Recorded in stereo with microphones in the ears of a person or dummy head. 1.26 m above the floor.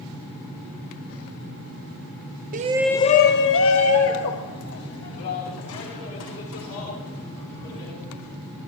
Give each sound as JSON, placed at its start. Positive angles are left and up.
{"t": 2.5, "sound": "a shout", "side_deg": -40, "distance_m": 0.6}